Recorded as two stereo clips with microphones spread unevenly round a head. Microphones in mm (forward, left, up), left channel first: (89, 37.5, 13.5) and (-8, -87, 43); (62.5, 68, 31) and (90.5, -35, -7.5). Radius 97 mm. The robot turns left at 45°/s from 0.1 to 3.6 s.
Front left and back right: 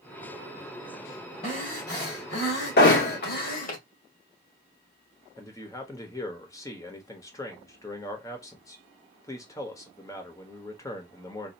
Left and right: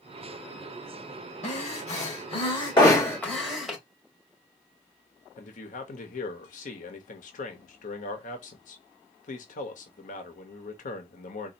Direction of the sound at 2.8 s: 55° left.